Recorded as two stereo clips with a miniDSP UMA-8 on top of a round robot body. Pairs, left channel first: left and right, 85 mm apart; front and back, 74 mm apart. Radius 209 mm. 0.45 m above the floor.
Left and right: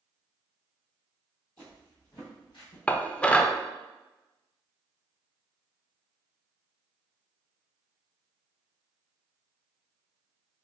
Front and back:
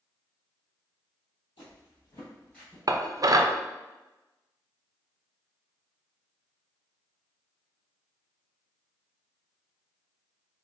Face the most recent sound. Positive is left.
turn(degrees=165)